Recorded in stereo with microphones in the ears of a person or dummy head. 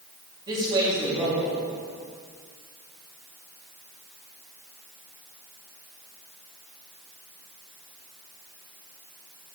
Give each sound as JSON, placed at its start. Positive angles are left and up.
{"t": 0.5, "sound": "a man speaking", "side_deg": -25, "distance_m": 2.5}